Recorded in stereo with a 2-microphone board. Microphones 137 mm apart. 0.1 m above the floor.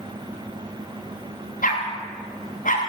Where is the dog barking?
85° left, 7 m; by 2.8 s 80° left, 8 m.